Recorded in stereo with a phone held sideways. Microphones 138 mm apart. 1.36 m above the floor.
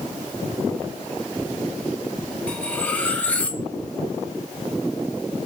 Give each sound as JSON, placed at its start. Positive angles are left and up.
{"t": 2.5, "sound": "cutlery clinking", "side_deg": 10, "distance_m": 0.6}